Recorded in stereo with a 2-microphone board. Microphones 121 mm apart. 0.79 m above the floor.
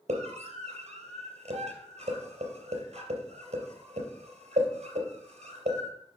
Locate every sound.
0.1 s a scream: 65° right (ahead or behind), 3.5 m